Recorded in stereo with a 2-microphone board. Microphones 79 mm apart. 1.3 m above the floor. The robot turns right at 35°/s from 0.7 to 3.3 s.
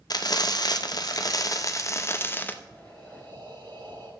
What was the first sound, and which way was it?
Frying, 90° left.